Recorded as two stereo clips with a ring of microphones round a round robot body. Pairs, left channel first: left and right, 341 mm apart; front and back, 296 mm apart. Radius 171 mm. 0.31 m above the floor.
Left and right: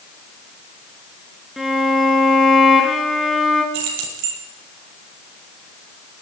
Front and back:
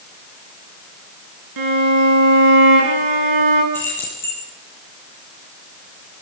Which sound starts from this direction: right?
Keys jangling, at 3.7 s.